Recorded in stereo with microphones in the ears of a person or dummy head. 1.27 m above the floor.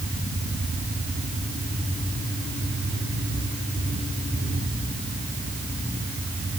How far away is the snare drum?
No snare drum in this recording.